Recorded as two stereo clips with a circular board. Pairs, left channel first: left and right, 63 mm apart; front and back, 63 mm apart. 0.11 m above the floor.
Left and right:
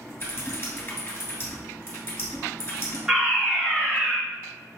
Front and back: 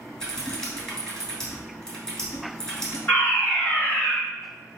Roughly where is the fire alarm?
Ahead.